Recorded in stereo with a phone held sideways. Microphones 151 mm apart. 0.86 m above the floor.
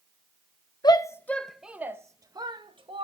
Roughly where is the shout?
Left.